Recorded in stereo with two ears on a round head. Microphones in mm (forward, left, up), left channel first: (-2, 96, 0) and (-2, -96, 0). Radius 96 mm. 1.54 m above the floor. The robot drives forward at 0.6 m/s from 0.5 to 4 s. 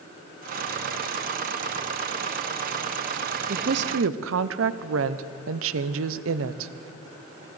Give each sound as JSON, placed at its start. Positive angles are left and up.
{"t": 3.5, "sound": "a woman speaking", "side_deg": -45, "distance_m": 0.7}